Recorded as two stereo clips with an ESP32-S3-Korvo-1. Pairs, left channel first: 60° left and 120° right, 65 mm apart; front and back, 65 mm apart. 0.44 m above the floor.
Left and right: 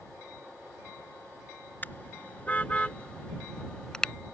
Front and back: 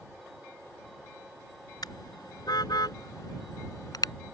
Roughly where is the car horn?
Ahead.